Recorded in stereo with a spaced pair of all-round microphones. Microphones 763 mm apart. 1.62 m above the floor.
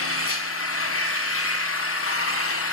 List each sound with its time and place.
0.0 s an engine running: 20° left (ahead or behind), 0.7 m